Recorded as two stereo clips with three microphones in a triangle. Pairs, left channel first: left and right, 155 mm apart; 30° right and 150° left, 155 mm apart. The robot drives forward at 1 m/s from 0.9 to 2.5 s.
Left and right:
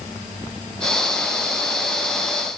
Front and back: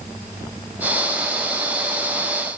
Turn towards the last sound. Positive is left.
No sound to turn to.